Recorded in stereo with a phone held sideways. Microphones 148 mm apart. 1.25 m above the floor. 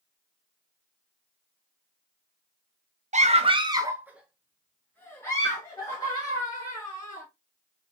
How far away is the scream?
About 0.6 m.